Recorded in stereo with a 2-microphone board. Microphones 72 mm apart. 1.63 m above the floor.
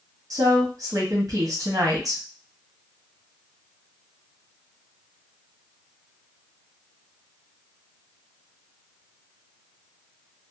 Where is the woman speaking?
50° right (ahead or behind), 0.9 m.